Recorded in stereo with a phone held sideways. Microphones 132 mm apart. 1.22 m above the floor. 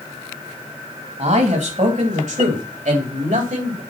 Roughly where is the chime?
I don't hear a chime.